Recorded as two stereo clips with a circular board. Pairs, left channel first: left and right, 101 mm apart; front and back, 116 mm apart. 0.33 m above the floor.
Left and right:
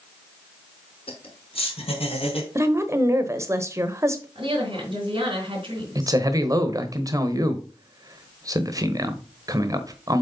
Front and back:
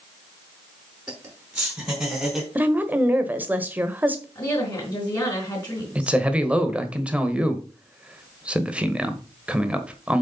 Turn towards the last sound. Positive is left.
turn(degrees=-105)